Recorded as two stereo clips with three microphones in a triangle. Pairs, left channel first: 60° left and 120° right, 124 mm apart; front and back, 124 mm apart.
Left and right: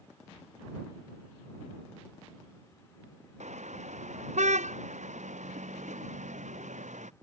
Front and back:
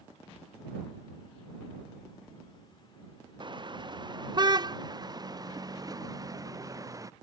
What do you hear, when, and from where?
3.4 s a car horn: 130° right; by 7.1 s 120° right